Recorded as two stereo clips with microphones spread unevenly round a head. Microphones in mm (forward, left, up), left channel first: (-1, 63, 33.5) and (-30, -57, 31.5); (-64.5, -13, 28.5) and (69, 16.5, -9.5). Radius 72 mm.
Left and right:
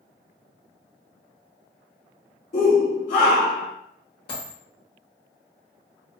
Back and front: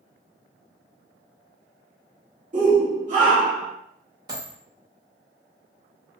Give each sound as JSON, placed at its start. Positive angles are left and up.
{"t": 2.5, "sound": "a shout", "azimuth_deg": 50, "distance_m": 1.1}
{"t": 4.3, "sound": "a dropped coin", "azimuth_deg": 80, "distance_m": 1.3}